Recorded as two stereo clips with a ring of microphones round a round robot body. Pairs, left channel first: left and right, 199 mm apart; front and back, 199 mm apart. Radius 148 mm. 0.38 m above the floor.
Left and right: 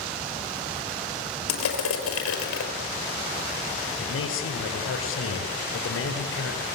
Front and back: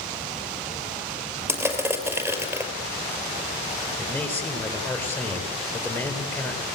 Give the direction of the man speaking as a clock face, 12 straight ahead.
9 o'clock.